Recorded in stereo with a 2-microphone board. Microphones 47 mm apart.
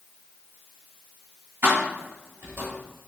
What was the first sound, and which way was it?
Keys jangling, 60° right (ahead or behind).